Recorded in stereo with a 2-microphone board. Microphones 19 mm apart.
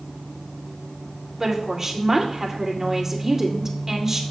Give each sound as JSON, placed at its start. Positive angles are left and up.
{"t": 1.4, "sound": "a woman speaking", "side_deg": -20, "distance_m": 1.9}